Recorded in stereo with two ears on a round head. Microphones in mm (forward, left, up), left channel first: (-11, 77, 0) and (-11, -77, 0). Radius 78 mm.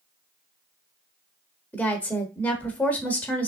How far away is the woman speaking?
About 1.0 m.